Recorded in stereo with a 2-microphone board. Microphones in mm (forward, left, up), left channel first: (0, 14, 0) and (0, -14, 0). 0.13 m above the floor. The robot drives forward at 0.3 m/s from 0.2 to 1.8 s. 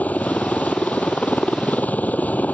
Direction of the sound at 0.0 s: 65° left (ahead or behind).